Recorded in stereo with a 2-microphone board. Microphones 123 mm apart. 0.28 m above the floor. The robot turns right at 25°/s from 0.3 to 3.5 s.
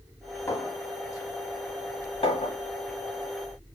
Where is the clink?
20° left (ahead or behind), 1.4 m; by 2.6 s 50° left (ahead or behind), 1.4 m.